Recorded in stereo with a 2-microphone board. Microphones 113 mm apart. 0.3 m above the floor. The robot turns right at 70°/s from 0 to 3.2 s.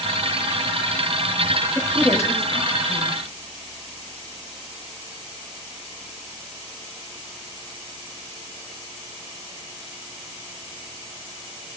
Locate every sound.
1.8 s a woman speaking: 5° left (ahead or behind), 1.3 m; by 3.2 s 50° left (ahead or behind), 1.3 m